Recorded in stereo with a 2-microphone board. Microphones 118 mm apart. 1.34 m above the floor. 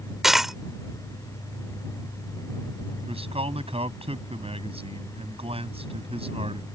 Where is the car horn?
I don't hear a car horn.